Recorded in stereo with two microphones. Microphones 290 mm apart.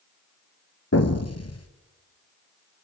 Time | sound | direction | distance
0.9 | an explosion | 55° left (ahead or behind) | 2 m